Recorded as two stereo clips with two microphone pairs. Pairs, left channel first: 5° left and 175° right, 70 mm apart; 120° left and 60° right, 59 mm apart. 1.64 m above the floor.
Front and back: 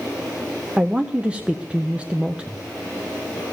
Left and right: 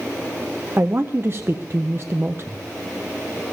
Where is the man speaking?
100° right, 0.5 m.